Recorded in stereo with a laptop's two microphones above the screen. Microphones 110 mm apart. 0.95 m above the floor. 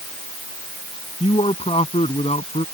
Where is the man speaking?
60° left (ahead or behind); by 2.6 s 70° left (ahead or behind).